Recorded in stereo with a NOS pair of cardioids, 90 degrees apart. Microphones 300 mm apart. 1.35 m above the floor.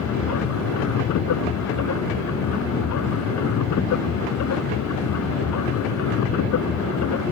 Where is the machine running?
70° left.